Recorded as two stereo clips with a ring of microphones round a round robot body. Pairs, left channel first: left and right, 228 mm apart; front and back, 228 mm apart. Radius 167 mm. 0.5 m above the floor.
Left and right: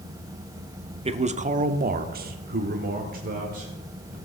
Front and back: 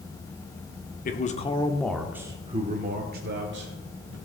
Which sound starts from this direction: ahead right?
A man speaking, at 1.1 s.